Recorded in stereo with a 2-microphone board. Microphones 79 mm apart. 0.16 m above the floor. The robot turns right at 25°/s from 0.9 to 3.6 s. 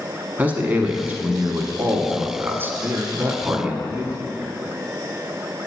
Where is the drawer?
No drawer in this recording.